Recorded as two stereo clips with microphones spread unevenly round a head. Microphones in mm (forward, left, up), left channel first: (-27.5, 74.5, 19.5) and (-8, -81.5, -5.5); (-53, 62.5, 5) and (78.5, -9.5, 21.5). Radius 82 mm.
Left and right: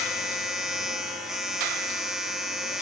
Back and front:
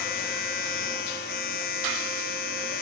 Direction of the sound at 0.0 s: 170° right.